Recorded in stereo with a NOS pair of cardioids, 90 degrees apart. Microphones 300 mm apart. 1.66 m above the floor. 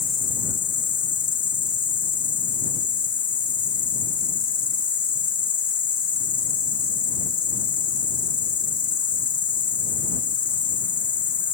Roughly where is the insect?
Ahead left.